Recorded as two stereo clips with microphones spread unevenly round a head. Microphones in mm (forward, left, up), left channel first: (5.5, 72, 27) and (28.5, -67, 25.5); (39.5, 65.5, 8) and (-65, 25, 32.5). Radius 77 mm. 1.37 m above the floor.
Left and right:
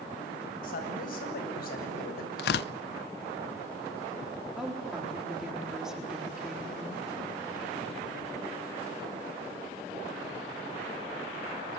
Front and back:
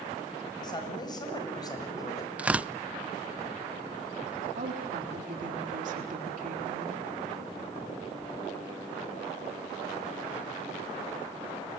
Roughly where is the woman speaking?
Behind.